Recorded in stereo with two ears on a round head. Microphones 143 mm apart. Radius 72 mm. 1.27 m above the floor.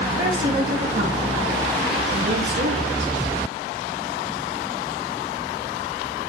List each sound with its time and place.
0.2 s a woman speaking: 30° right (ahead or behind), 2 m; by 3.1 s 80° right, 2.5 m